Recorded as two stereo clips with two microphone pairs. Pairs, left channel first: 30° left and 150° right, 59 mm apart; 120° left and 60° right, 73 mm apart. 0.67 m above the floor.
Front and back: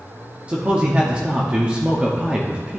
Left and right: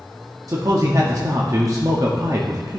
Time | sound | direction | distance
0.5 | a man speaking | 85° right | 0.8 m